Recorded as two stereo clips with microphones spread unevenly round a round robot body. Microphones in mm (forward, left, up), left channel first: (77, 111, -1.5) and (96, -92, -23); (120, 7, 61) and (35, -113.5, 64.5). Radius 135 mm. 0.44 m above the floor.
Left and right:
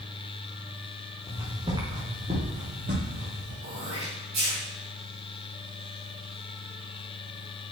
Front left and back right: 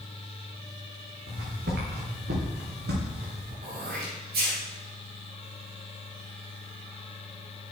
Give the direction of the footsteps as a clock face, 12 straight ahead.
6 o'clock.